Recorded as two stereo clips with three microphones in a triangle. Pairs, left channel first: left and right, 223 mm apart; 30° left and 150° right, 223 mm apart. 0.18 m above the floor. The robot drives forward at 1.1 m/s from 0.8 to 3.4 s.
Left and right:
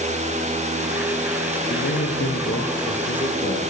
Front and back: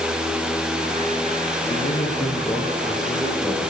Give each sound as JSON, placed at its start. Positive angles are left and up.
{"t": 1.7, "sound": "a man speaking", "azimuth_deg": 85, "distance_m": 2.5}